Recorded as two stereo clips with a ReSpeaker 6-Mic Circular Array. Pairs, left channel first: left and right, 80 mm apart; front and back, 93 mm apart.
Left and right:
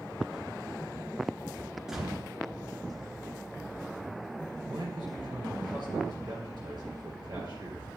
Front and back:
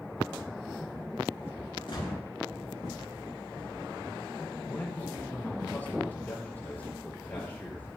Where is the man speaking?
70° right, 4 m.